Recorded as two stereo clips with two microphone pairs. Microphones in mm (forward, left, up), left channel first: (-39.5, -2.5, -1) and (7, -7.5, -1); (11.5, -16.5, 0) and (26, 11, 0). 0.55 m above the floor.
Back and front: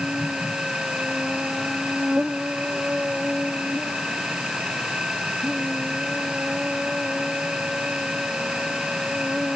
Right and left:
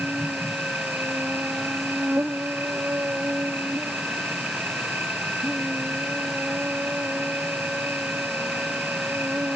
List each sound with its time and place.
0.0 s an insect: 60° left